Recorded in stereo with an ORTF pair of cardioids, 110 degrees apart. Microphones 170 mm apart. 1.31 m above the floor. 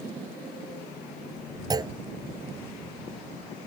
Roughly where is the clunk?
Ahead right.